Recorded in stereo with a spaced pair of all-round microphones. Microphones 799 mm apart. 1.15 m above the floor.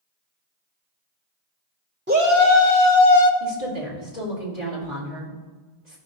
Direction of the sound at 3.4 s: 75° right (ahead or behind).